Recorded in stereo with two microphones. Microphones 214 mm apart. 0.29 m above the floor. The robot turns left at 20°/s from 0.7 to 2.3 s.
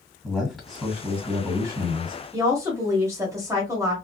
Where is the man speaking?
Centre (ahead or behind), 1.7 m; by 2.2 s 25° right (ahead or behind), 1.7 m.